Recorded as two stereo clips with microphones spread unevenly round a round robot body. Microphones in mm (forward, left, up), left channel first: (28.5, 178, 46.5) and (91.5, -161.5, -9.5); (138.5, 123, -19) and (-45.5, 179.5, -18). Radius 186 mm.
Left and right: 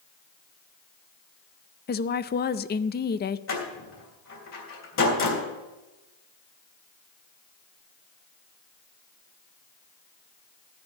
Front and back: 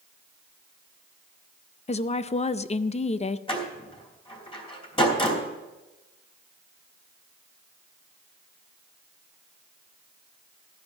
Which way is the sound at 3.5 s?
45° left.